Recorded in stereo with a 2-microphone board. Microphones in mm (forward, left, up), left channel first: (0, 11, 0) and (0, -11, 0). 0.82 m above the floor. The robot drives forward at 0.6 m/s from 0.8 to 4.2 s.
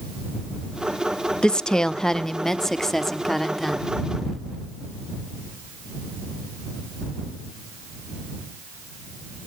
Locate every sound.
1.4 s a woman speaking: 40° left (ahead or behind), 0.6 m; by 3.9 s 10° left (ahead or behind), 1.8 m